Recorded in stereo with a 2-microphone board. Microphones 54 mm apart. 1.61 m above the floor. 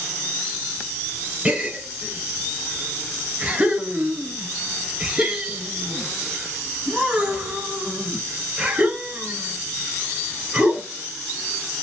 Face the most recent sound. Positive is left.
turn(degrees=-20)  # may be behind; listen again after turning